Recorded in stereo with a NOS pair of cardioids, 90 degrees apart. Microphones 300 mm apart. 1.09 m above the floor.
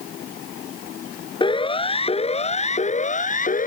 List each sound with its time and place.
1.4 s a siren: 15° left; by 3.7 s 25° left